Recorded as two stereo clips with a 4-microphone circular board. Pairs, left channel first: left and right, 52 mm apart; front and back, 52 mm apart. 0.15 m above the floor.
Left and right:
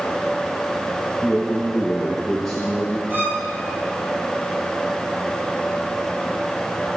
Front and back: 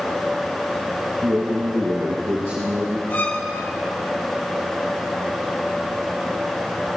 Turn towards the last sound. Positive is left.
turn(degrees=-45)